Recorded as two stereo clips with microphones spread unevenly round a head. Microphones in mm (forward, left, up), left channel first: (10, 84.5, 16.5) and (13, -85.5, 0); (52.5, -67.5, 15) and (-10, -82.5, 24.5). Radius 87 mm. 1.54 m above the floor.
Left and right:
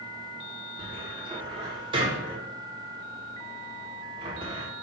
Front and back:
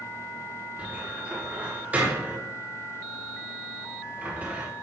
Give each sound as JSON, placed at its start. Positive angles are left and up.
{"t": 0.8, "sound": "a cupboard door", "azimuth_deg": -140, "distance_m": 1.2}